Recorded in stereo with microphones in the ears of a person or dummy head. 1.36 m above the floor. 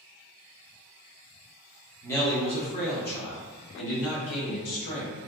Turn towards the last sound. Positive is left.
turn(degrees=75)  # may be behind; listen again after turning